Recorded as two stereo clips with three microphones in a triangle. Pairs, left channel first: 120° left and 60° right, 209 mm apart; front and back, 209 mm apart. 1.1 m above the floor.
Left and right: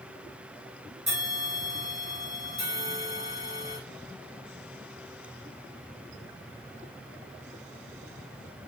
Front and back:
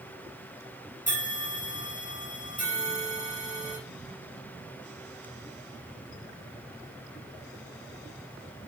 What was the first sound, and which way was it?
A bell, 50° right.